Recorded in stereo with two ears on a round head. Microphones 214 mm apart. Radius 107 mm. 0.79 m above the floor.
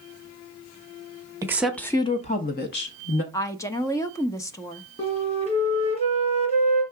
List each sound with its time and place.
1.4 s a woman speaking: 15° right (ahead or behind), 0.9 m; by 3.2 s 55° left (ahead or behind), 1.4 m
3.3 s a woman speaking: 15° left (ahead or behind), 0.6 m
5.0 s a flute: 25° left (ahead or behind), 2 m